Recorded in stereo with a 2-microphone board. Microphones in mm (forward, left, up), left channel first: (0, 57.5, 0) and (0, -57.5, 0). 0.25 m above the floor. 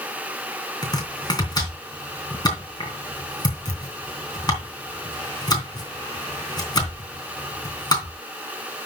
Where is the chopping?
35° left (ahead or behind), 3 m.